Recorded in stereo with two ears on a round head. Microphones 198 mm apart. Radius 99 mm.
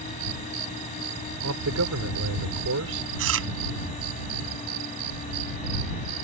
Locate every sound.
1.4 s a man speaking: 80° right
3.2 s chewing: 70° right (ahead or behind)